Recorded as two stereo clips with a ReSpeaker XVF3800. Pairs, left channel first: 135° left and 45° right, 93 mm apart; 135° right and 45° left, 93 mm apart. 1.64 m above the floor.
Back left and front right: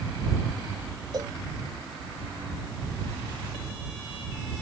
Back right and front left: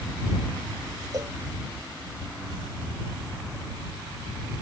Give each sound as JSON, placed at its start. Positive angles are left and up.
{"t": 1.1, "sound": "a cowbell", "azimuth_deg": 0}